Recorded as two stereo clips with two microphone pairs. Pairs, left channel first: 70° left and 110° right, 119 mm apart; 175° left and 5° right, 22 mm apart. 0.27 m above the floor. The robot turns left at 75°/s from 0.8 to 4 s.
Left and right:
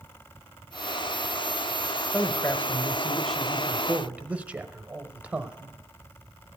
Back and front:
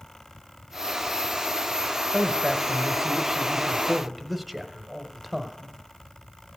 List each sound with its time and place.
2.1 s a man speaking: 75° left, 0.9 m; by 5.8 s 70° right, 0.9 m